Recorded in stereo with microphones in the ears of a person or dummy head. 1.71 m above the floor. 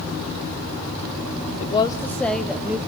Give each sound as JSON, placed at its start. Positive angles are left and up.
{"t": 1.6, "sound": "a woman speaking", "side_deg": 40, "distance_m": 0.9}